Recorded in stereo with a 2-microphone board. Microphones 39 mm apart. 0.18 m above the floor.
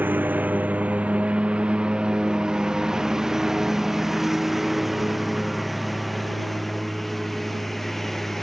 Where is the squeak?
No squeak in this recording.